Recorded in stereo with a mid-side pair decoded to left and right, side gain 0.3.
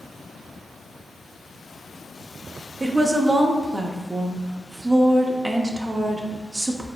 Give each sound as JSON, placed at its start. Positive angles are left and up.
{"t": 2.8, "sound": "a woman speaking", "azimuth_deg": -25, "distance_m": 0.6}